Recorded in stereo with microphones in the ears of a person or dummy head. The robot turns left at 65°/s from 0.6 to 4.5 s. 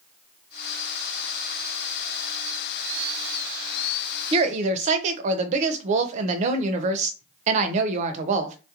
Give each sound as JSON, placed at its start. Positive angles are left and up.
{"t": 4.3, "sound": "a woman speaking", "side_deg": -30, "distance_m": 0.6}